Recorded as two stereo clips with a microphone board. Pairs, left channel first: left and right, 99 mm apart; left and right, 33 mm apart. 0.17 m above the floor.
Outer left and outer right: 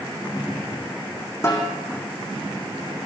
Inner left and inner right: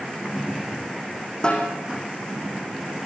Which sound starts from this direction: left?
A snare drum, at 1.4 s.